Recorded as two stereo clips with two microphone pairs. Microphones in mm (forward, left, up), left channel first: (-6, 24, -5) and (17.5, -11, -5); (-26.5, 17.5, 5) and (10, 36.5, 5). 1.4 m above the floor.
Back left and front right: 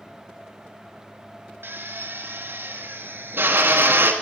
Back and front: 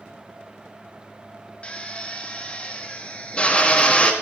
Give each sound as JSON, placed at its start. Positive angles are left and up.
{"t": 1.6, "sound": "a drill", "azimuth_deg": -90, "distance_m": 2.0}